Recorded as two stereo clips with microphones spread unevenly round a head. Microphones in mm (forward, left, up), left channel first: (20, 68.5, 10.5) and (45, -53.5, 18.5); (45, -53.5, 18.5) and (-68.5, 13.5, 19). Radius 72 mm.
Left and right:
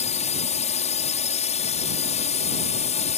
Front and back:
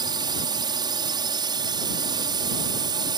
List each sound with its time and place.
0.0 s a drone: 95° left